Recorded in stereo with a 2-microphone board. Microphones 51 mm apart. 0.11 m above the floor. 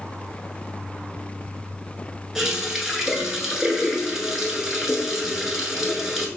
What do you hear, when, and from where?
2.4 s a running tap: 10° right (ahead or behind), 0.9 m